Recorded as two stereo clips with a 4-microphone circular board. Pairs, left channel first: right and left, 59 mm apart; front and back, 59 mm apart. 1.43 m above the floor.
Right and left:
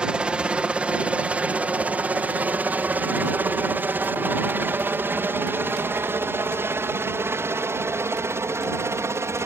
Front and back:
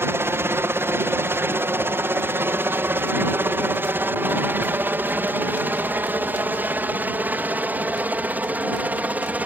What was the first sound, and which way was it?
A helicopter, 160° left.